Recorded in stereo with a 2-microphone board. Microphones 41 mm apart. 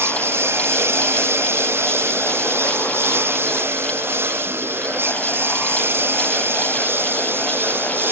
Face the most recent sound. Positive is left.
turn(degrees=-65)  # may be behind; listen again after turning